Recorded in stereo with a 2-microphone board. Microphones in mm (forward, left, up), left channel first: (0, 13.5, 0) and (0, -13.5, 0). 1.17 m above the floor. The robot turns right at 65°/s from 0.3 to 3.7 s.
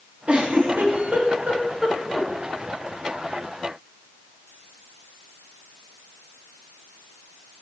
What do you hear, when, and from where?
0.3 s a giggle: 55° right (ahead or behind), 3 m; by 2.3 s 5° left (ahead or behind), 3 m